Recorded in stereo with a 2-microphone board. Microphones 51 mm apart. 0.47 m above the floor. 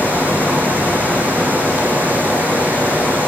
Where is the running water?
35° right (ahead or behind), 3 m.